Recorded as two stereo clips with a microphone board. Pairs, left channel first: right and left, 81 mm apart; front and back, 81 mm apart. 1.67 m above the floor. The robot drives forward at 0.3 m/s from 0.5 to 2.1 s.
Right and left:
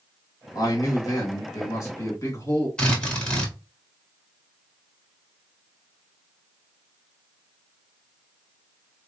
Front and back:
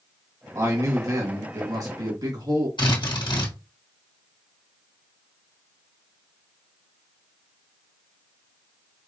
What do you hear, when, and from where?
0.6 s a man speaking: 130° right, 1.6 m; by 2.7 s 140° right, 1.9 m
2.8 s a drill: 15° right, 1.4 m